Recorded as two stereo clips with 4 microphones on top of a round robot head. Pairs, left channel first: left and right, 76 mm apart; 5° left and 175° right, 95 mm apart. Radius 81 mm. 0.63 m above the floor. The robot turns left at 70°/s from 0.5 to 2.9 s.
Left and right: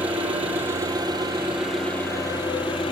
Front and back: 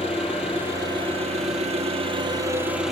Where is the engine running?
95° right, 5.5 m; by 2.9 s 100° left, 5.5 m.